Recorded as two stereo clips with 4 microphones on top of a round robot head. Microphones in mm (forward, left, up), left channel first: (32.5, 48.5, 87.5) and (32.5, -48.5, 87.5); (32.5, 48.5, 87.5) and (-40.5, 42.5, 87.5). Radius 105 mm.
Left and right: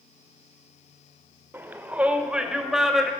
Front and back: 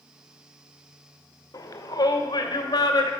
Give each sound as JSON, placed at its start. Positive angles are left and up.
{"t": 1.5, "sound": "a shout", "azimuth_deg": -25, "distance_m": 1.7}